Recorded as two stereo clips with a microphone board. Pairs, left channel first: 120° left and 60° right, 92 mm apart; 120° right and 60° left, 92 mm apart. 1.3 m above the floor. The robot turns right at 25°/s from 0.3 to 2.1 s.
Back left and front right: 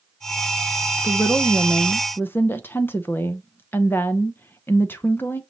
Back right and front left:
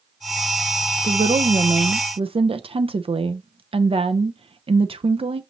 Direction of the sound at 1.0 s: 30° left.